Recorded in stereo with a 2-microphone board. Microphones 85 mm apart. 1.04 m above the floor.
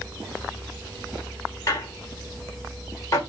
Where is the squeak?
40° left (ahead or behind), 0.9 m.